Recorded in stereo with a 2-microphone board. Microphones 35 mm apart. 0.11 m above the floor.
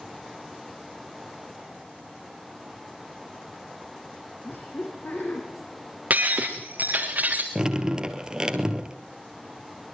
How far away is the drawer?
I don't hear a drawer.